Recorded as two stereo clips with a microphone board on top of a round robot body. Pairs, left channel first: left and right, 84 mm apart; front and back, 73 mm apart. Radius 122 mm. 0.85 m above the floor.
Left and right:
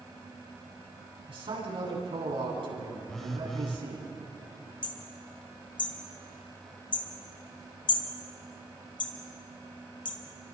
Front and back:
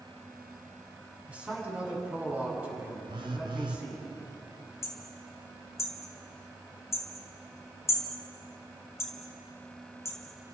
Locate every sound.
1.3 s a man speaking: 105° right, 8.5 m
3.1 s a phone buzzing: 175° left, 0.7 m
4.8 s hammering: 55° left, 2 m